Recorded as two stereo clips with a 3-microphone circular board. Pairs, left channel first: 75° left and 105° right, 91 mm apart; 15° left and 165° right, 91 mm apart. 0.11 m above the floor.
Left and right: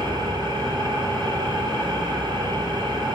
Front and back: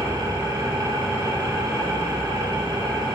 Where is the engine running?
115° right, 2 m.